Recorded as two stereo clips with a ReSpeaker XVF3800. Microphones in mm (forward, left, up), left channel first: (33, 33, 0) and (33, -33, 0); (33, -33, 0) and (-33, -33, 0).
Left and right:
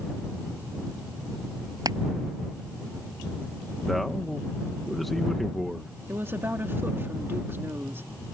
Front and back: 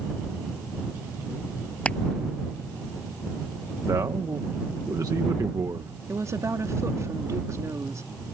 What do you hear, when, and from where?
1.9 s crushing: 75° right
3.9 s a man speaking: straight behind
6.1 s a woman speaking: 140° right